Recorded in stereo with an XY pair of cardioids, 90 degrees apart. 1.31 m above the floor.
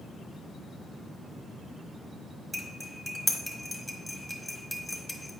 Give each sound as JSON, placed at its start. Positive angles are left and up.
{"t": 2.5, "sound": "cutlery clinking", "azimuth_deg": 5, "distance_m": 1.3}